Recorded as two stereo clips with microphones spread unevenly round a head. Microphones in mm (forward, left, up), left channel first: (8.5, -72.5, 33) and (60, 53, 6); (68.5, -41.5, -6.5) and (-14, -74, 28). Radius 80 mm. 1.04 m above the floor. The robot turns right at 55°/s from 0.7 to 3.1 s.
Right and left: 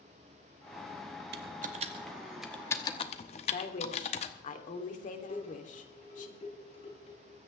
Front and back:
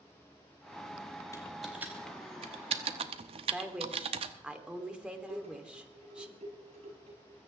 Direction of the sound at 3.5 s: 80° right.